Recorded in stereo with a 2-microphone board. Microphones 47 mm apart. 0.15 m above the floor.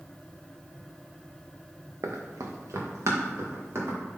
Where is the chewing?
No chewing in this recording.